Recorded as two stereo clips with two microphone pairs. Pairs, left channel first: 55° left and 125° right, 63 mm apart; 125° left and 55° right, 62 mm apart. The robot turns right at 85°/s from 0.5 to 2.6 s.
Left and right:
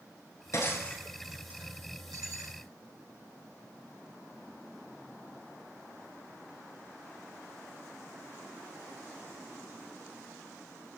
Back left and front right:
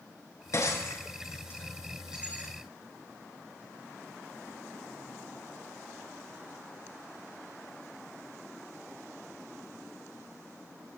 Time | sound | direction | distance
0.5 | breaking glass | 90° left | 8 m